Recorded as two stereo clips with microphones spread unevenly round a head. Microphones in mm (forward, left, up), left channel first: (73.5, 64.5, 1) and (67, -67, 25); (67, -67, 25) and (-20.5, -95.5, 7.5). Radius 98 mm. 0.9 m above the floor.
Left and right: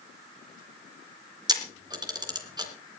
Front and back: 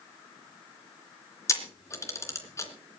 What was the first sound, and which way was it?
A camera shutter, 35° right.